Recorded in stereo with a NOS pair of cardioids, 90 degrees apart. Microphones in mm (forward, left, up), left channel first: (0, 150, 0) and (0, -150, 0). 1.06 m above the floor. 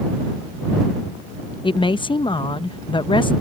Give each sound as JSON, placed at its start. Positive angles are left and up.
{"t": 1.6, "sound": "a woman speaking", "azimuth_deg": 15}